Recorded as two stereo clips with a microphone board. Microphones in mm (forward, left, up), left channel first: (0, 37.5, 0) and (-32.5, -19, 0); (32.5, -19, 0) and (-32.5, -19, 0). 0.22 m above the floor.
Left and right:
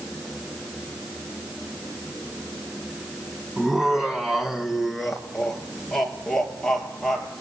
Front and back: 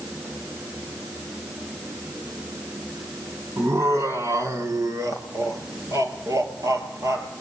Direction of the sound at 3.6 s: 160° left.